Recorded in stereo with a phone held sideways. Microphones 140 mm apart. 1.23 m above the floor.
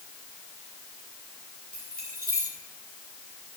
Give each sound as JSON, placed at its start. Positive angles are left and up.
{"t": 1.7, "sound": "keys jangling", "side_deg": -85, "distance_m": 9.0}